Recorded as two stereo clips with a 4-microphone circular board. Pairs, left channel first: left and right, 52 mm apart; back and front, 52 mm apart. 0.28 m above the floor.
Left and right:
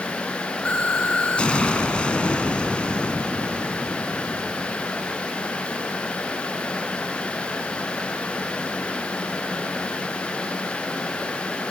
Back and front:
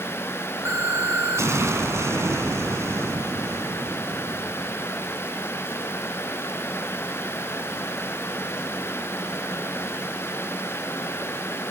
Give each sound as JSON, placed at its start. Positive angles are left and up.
{"t": 0.7, "sound": "an explosion", "azimuth_deg": 20, "distance_m": 2.0}